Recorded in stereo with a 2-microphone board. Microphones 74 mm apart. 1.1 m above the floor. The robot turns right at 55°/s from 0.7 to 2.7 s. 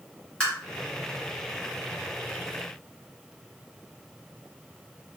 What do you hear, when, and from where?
0.4 s tapping: 15° left (ahead or behind), 1.3 m